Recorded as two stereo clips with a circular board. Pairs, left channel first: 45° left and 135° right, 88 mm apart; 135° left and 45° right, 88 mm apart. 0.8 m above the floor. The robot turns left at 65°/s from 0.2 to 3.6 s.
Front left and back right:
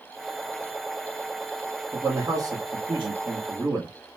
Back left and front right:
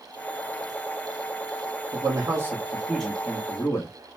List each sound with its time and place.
1.9 s a man speaking: 65° right, 1.1 m; by 3.9 s 175° right, 1.1 m